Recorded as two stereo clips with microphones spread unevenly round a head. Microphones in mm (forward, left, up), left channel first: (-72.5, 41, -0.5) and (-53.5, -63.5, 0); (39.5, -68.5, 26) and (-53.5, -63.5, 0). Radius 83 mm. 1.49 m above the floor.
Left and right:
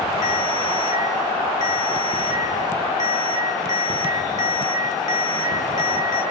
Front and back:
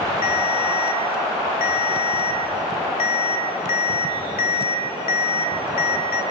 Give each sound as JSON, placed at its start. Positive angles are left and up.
{"t": 0.2, "sound": "a ringtone", "azimuth_deg": 35, "distance_m": 2.5}